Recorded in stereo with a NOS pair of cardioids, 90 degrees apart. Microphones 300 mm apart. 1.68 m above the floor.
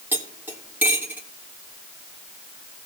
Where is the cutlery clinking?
5° right, 3 m.